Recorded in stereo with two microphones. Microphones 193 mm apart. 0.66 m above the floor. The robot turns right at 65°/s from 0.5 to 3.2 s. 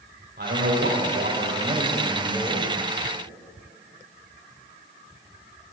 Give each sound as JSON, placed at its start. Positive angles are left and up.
{"t": 0.4, "sound": "a man speaking", "azimuth_deg": -115, "distance_m": 3.0}